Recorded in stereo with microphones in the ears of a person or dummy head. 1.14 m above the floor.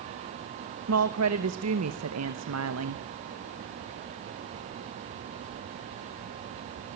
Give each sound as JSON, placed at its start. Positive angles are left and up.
{"t": 0.9, "sound": "a woman speaking", "side_deg": -75, "distance_m": 1.1}